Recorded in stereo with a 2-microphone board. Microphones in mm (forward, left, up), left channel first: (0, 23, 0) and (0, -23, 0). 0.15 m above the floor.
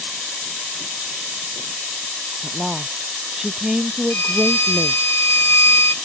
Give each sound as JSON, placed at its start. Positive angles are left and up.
{"t": 2.4, "sound": "a woman speaking", "side_deg": -15}
{"t": 4.1, "sound": "a violin", "side_deg": 60}